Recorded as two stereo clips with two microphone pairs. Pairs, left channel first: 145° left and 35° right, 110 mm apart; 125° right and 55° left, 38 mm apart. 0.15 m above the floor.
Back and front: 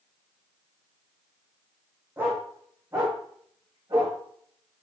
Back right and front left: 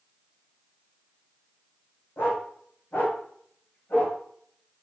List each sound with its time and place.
2.2 s a dog barking: 100° right, 3.5 m; by 4.2 s 85° right, 6 m